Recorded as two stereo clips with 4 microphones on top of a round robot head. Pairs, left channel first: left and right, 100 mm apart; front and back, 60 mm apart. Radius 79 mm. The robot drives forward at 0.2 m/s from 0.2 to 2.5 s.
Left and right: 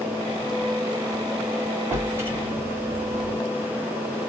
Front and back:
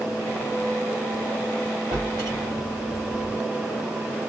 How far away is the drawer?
About 1.9 m.